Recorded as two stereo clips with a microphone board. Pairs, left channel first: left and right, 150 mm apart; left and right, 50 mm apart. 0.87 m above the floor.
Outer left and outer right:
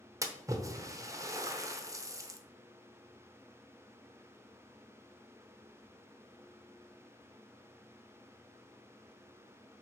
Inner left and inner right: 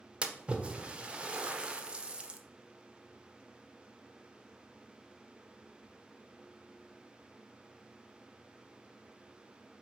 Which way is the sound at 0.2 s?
20° right (ahead or behind).